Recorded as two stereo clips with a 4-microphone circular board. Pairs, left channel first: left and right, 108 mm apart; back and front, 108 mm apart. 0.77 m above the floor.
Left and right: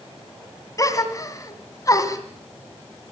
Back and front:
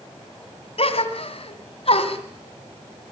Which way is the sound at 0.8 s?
150° left.